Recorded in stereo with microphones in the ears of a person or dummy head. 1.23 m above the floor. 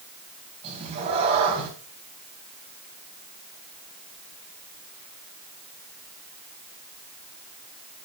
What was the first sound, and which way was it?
A cat meowing, 35° right (ahead or behind).